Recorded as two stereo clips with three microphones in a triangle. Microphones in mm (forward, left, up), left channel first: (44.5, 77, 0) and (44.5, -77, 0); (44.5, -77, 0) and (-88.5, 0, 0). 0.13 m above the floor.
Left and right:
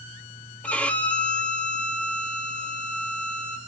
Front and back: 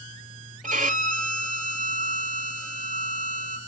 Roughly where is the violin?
Behind.